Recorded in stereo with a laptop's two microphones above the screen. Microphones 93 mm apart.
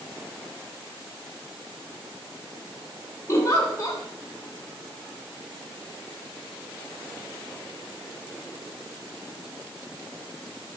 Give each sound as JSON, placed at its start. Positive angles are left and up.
{"t": 3.3, "sound": "a giggle", "side_deg": 35, "distance_m": 2.0}